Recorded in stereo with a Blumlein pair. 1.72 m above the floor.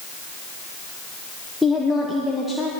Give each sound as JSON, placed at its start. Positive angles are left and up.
{"t": 1.6, "sound": "a woman speaking", "azimuth_deg": 5, "distance_m": 1.3}